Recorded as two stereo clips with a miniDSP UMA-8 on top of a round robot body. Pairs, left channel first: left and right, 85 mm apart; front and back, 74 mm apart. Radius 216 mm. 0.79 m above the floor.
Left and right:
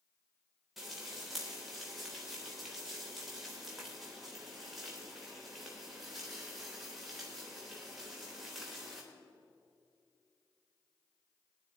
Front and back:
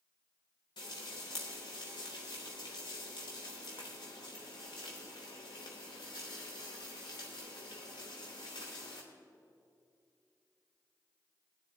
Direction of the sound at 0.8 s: Straight ahead.